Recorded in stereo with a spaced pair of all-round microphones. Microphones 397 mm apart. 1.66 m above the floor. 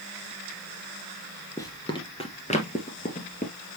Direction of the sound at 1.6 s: 10° left (ahead or behind).